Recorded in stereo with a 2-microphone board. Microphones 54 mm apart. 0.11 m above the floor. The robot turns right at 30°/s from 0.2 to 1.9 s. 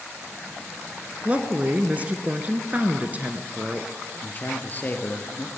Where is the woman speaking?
25° right (ahead or behind), 1.3 m; by 3.9 s 30° right (ahead or behind), 1.3 m.